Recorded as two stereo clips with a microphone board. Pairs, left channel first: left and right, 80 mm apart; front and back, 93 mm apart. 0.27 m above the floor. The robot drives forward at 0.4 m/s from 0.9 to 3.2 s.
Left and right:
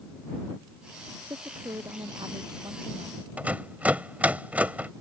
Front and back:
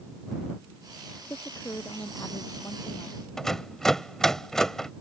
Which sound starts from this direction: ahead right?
A woman speaking, at 1.3 s.